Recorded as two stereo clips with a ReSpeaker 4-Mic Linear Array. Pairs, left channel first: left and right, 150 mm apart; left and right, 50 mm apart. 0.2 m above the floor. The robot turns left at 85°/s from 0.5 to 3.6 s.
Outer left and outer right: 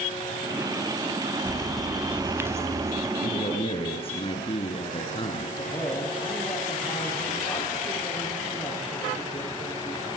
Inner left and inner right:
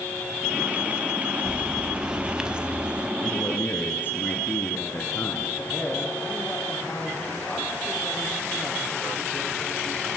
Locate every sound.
1.4 s a bird: 10° left (ahead or behind), 0.8 m; by 3.1 s 20° right (ahead or behind), 0.8 m
3.2 s a man speaking: 80° left, 3 m; by 5.5 s 45° left, 3 m
5.6 s a man speaking: 20° left (ahead or behind), 10 m